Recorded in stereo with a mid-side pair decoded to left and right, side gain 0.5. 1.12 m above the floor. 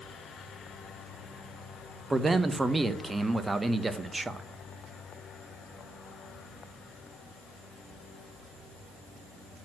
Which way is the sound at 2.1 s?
15° right.